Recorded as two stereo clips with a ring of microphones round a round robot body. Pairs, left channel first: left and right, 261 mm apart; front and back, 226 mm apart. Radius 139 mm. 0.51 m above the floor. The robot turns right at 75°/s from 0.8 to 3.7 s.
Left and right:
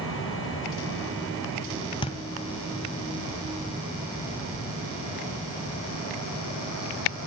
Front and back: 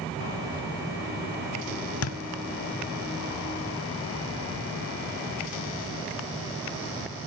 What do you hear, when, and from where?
2.0 s a thud: 15° left, 0.7 m; by 2.2 s 30° left, 0.7 m